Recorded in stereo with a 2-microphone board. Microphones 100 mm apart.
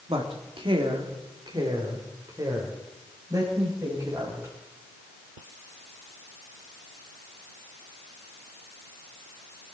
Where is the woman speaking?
65° right (ahead or behind), 2.0 m; by 4.5 s 30° right (ahead or behind), 5.5 m.